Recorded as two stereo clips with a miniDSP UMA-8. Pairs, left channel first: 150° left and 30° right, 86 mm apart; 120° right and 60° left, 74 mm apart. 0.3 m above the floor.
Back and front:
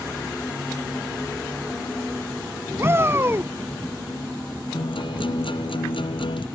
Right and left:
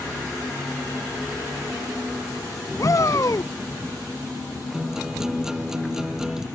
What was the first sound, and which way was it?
A shout, 85° right.